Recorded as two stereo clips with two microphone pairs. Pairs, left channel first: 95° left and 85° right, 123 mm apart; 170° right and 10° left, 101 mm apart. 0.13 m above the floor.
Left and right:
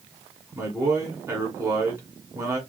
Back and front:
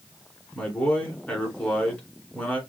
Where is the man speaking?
110° right, 1.8 m.